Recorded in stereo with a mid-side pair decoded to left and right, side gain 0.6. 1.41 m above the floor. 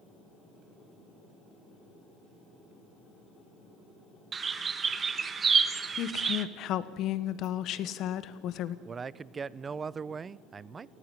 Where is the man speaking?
30° right, 0.6 m.